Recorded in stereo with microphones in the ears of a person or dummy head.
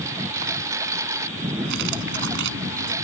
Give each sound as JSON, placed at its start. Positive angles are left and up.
{"t": 0.0, "sound": "a lawn mower", "side_deg": -10}
{"t": 1.6, "sound": "cutlery clinking", "side_deg": -60}